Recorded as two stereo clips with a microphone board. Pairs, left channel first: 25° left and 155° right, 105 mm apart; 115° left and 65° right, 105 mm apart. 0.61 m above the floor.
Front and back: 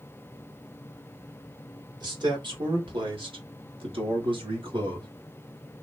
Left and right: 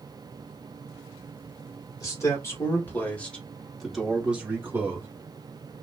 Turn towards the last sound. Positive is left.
turn(degrees=-130)